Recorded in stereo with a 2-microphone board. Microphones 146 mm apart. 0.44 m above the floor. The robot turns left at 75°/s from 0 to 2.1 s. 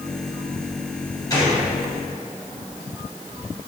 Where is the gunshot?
25° left (ahead or behind), 3.5 m; by 1.6 s 45° left (ahead or behind), 3.5 m.